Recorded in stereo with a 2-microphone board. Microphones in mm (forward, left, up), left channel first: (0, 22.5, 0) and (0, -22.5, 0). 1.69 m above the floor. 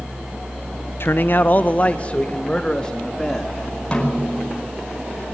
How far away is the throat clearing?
No throat clearing in this recording.